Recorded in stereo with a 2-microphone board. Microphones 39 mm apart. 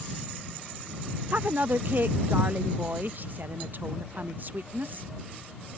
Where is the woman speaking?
50° right (ahead or behind).